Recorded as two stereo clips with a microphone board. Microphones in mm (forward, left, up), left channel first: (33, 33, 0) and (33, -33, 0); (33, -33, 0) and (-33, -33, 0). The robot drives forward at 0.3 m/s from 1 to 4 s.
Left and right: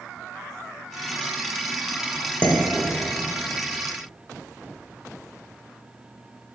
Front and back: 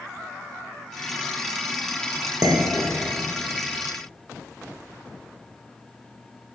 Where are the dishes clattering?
150° left, 0.6 m; by 3.3 s 160° left, 0.8 m.